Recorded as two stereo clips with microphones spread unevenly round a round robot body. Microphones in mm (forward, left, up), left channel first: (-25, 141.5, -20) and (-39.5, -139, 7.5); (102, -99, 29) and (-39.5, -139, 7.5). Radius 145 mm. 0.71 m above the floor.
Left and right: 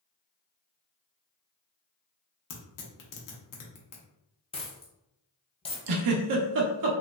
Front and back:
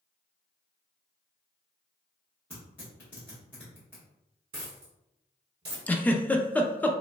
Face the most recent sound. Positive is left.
turn(degrees=-70)